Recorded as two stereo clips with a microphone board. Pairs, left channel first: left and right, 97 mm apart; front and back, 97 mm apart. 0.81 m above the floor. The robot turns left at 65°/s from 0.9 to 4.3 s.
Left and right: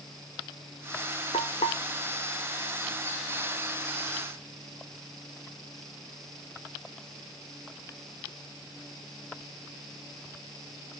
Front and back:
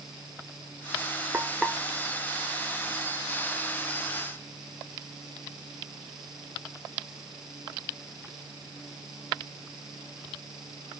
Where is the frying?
110° left, 1.2 m; by 1.8 s 85° left, 1.2 m.